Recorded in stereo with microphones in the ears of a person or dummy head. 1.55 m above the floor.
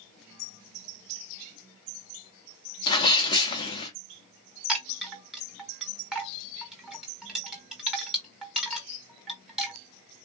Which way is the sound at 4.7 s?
Centre (ahead or behind).